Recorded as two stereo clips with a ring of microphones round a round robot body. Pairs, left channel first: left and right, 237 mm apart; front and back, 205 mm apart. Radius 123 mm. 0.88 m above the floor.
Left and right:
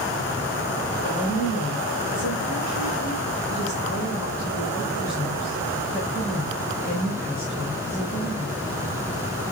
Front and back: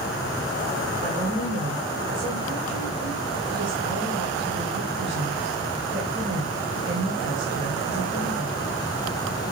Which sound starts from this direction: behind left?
A woman speaking, at 1.0 s.